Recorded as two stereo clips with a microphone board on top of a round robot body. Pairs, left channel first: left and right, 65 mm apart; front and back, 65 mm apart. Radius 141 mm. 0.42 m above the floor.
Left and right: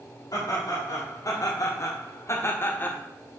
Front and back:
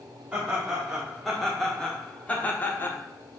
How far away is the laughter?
About 2 m.